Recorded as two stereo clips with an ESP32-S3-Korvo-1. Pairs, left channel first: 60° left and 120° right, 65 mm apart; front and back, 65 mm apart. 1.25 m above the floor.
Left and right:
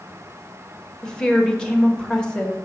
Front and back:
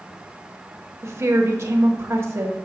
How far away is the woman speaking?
About 1.0 m.